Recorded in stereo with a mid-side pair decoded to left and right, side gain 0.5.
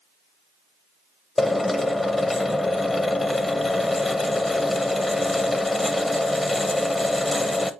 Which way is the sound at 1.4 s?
15° left.